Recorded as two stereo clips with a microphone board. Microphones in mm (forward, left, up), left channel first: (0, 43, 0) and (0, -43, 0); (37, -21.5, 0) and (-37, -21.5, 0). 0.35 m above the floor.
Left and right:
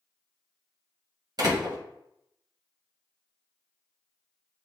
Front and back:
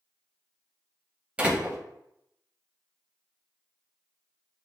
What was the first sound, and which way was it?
A door slam, 110° right.